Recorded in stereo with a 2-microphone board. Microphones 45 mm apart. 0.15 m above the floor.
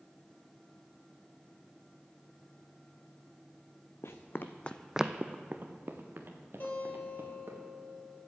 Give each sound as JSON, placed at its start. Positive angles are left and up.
{"t": 4.0, "sound": "running footsteps", "side_deg": 70, "distance_m": 0.9}
{"t": 6.6, "sound": "a guitar", "side_deg": 50, "distance_m": 2.5}